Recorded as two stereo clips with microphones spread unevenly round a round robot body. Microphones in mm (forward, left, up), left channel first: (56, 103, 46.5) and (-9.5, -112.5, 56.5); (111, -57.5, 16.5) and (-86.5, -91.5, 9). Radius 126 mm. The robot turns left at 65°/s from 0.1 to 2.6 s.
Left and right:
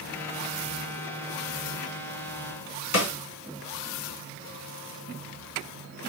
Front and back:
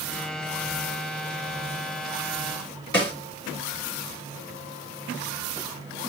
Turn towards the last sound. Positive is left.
turn(degrees=80)